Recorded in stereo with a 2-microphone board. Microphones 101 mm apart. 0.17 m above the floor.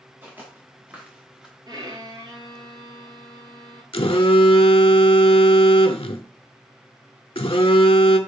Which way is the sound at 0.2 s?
20° right (ahead or behind).